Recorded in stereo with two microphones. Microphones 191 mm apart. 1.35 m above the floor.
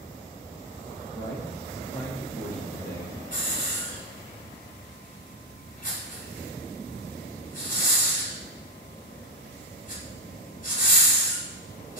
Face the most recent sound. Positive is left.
turn(degrees=45)  # may be behind; listen again after turning